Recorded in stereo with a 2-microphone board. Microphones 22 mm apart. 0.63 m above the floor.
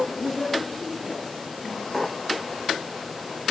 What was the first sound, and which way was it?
A woman speaking, 25° left (ahead or behind).